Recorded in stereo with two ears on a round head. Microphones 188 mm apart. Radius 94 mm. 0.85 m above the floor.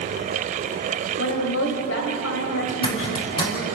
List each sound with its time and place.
1.2 s a woman speaking: 70° left (ahead or behind), 4 m
2.7 s a zipper: 25° left (ahead or behind), 4.5 m